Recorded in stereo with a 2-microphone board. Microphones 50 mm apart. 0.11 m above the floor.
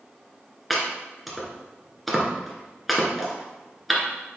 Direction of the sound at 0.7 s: Centre (ahead or behind).